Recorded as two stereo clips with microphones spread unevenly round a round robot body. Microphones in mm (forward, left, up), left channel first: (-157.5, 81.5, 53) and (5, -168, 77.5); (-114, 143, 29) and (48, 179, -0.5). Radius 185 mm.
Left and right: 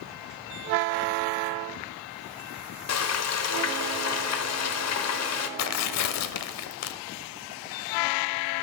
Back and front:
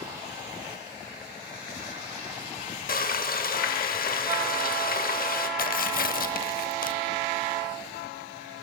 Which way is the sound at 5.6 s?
160° left.